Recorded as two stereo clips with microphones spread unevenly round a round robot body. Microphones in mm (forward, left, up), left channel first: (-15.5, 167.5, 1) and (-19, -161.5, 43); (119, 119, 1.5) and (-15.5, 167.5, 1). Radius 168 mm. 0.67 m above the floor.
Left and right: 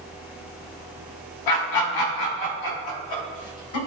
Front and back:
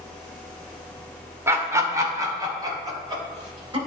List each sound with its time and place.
1.5 s laughter: 90° left, 2 m; by 3.8 s 105° left, 3.5 m